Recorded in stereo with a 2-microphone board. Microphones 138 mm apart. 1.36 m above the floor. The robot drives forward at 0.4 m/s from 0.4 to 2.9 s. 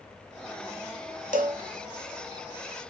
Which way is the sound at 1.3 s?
75° right (ahead or behind).